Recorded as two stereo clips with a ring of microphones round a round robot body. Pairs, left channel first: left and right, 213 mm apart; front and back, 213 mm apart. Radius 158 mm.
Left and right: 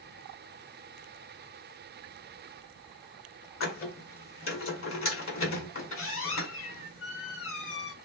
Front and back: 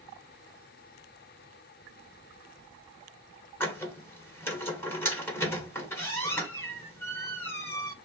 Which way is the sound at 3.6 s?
80° left.